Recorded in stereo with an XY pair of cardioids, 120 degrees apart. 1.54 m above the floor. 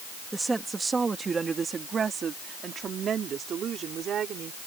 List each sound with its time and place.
0.3 s a woman speaking: 15° right; by 4.6 s 55° right